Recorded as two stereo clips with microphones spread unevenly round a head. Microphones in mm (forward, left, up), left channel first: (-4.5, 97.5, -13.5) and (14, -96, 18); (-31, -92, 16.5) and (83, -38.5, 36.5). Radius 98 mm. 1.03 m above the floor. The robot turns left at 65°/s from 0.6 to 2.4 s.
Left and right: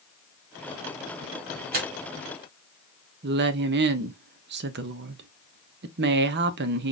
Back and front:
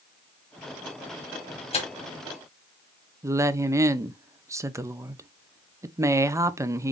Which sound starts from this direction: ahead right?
A woman speaking, at 3.2 s.